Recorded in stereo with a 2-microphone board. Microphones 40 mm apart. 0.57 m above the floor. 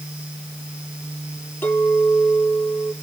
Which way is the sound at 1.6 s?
65° left (ahead or behind).